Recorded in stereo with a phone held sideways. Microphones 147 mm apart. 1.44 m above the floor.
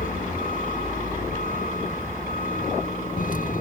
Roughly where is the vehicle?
Left.